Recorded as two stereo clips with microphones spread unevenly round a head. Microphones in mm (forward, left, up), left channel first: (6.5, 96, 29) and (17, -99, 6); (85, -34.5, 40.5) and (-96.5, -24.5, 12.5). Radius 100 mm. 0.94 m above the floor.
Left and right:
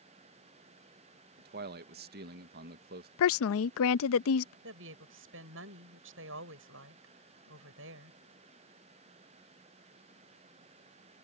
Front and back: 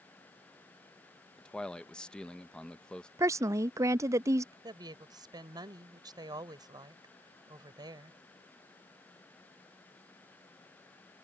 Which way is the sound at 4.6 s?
115° right.